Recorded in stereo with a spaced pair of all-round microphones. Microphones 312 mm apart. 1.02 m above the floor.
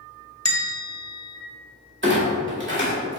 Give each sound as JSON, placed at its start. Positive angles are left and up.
{"t": 0.5, "sound": "a bell", "side_deg": 55, "distance_m": 1.0}
{"t": 2.0, "sound": "a clunk", "side_deg": -40, "distance_m": 1.7}